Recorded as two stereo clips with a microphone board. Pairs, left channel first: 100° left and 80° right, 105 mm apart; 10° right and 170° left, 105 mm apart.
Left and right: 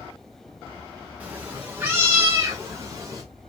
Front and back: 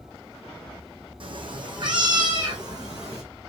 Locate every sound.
1.2 s a cat meowing: 155° right, 2.5 m; by 3.2 s 135° right, 3.5 m